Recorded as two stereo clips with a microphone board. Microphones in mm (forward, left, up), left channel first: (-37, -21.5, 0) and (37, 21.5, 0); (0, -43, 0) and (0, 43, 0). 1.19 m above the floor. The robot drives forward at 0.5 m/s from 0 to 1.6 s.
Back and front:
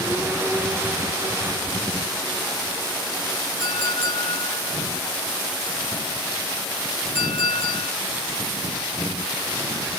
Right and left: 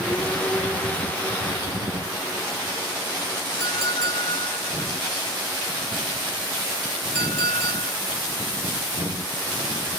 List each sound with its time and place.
3.6 s a clink: 155° right, 2.5 m